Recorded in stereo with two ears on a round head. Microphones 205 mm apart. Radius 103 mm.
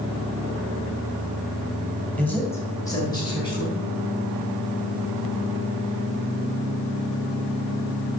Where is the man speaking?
5° left (ahead or behind), 2.5 m; by 3.8 s 20° left (ahead or behind), 4.5 m.